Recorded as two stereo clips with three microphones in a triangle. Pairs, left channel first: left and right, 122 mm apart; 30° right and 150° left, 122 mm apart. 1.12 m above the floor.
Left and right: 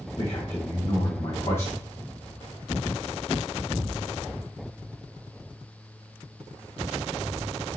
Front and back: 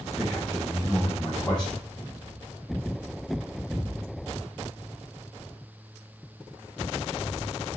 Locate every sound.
0.2 s a man speaking: 50° left, 1.4 m